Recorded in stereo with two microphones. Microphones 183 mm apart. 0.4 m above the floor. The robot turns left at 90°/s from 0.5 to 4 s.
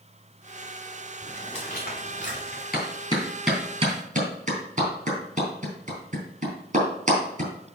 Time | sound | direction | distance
1.2 | footsteps | centre (ahead or behind) | 2.5 m
2.7 | a clap | 55° left (ahead or behind) | 3.5 m